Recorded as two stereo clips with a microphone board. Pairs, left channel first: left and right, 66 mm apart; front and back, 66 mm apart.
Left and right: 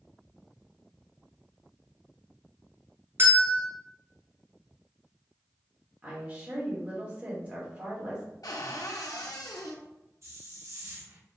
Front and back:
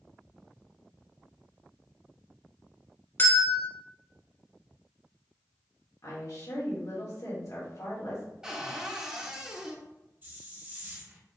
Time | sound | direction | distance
3.2 | a bell | 50° right | 1.2 m
6.0 | a woman speaking | 25° right | 1.8 m
8.4 | a cupboard door | 105° left | 0.7 m
10.2 | a hiss | 125° right | 0.9 m